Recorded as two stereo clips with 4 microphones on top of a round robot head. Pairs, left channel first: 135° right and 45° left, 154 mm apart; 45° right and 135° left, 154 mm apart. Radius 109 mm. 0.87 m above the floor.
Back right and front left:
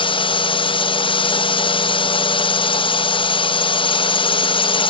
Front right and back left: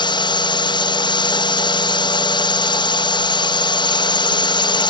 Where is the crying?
No crying in this recording.